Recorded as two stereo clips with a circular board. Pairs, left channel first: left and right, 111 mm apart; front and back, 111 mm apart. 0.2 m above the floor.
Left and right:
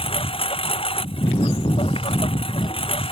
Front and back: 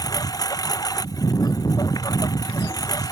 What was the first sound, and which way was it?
A lawn mower, 55° left.